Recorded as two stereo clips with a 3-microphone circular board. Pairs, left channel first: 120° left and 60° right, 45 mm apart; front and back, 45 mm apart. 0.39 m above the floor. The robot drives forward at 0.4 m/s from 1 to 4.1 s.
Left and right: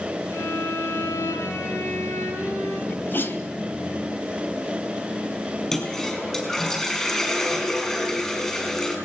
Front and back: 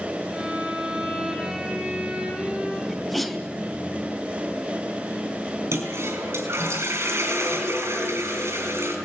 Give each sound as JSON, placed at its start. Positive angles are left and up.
{"t": 0.3, "sound": "a violin", "azimuth_deg": 105, "distance_m": 5.5}
{"t": 2.9, "sound": "a sneeze", "azimuth_deg": 85, "distance_m": 2.5}
{"t": 5.7, "sound": "a toilet flushing", "azimuth_deg": -165, "distance_m": 6.0}